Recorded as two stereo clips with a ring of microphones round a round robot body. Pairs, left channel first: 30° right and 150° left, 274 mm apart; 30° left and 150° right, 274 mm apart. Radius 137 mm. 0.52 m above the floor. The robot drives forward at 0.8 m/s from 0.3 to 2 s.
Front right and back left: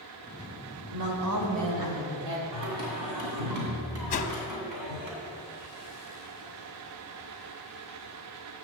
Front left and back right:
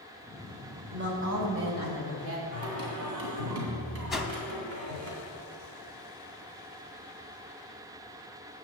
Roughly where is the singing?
Behind.